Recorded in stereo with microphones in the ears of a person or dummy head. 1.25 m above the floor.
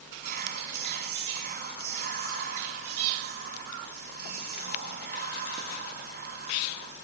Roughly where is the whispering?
Right.